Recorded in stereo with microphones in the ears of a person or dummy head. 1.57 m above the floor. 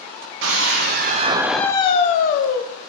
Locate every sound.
0.4 s a scream: 65° right (ahead or behind), 1.0 m; by 2.6 s 65° left (ahead or behind), 1.1 m